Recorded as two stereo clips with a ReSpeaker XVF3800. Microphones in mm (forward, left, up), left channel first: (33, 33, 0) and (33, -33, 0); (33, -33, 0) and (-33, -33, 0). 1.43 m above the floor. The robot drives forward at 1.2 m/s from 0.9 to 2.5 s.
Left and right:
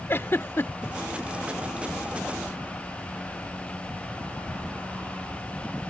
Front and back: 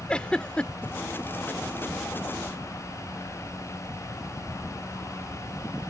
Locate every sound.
0.1 s a giggle: 70° left; by 0.9 s 75° left